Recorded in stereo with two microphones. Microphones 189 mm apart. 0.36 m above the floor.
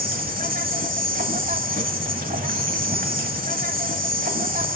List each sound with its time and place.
0.0 s an insect: 50° right (ahead or behind), 1.0 m